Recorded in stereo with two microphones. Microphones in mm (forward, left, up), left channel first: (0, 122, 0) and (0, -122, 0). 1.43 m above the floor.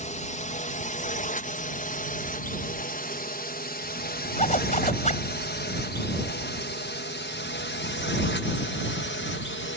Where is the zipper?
30° left (ahead or behind).